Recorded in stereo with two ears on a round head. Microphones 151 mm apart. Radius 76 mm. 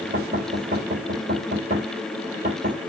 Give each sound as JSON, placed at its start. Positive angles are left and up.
{"t": 0.1, "sound": "knocking", "side_deg": -45, "distance_m": 3.5}